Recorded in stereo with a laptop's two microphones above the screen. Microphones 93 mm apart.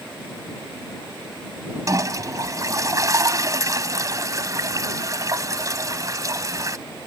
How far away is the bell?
I don't hear a bell.